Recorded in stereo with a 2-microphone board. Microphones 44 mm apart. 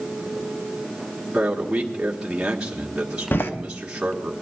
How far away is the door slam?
About 0.9 m.